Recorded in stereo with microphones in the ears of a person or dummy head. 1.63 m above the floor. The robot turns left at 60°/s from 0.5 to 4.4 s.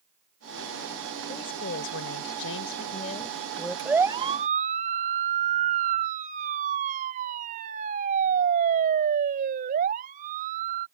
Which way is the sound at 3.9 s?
Centre (ahead or behind).